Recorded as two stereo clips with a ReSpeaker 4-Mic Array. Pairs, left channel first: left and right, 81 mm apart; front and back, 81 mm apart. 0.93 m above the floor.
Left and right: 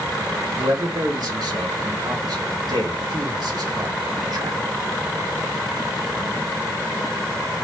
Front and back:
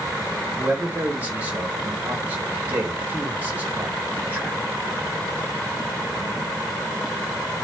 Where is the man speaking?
115° right, 3 m.